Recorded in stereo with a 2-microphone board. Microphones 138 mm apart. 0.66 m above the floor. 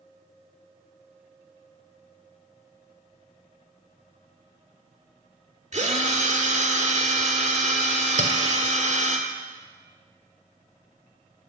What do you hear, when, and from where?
5.7 s a drill: 55° right (ahead or behind), 1.7 m
8.2 s a clink: 65° right (ahead or behind), 1.7 m